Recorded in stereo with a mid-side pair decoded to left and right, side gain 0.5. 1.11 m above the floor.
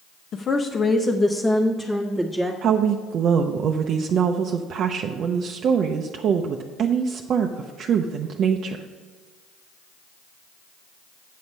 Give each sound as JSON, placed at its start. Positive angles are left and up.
{"t": 0.3, "sound": "a woman speaking", "azimuth_deg": 55, "distance_m": 0.7}
{"t": 2.6, "sound": "a woman speaking", "azimuth_deg": -60, "distance_m": 0.6}